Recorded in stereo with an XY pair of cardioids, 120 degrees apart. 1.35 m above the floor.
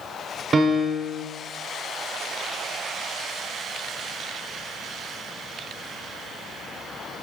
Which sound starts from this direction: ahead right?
A piano, at 0.5 s.